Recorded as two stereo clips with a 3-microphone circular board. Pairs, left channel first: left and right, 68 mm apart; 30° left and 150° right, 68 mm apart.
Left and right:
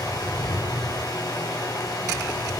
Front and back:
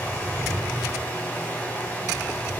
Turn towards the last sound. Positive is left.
turn(degrees=90)